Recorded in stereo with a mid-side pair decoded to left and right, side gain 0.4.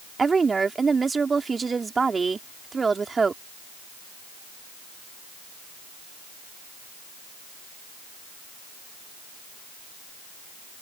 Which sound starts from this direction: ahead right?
A woman speaking, at 0.2 s.